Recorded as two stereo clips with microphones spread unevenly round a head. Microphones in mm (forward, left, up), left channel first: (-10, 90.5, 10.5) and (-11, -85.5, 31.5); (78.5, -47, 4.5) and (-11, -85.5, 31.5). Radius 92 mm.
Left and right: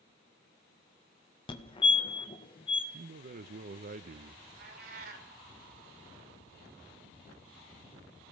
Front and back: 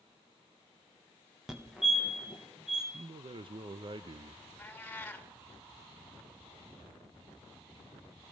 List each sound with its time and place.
1.5 s a fire alarm: 95° left, 1.4 m
2.9 s a man speaking: 120° right, 0.6 m
4.6 s a cat meowing: 50° right, 2 m